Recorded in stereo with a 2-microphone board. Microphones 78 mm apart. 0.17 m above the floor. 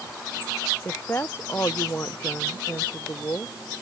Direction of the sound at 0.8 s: 30° left (ahead or behind).